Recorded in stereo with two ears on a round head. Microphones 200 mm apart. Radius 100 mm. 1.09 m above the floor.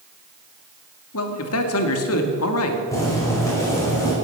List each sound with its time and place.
1.1 s a man speaking: 65° left (ahead or behind), 2 m
2.9 s boiling: 15° left (ahead or behind), 5.5 m